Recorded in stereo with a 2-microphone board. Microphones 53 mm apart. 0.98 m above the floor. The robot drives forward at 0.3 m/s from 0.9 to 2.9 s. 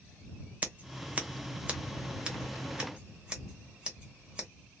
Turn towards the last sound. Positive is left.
turn(degrees=-15)  # may be behind; listen again after turning